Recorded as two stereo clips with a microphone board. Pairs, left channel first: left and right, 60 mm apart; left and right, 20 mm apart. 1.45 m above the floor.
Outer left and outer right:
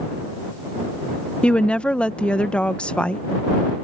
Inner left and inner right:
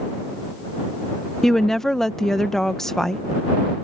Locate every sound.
1.4 s a woman speaking: 20° left (ahead or behind)